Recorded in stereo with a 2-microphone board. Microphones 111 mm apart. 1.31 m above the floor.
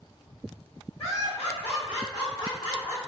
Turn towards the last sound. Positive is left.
turn(degrees=30)  # may be behind; listen again after turning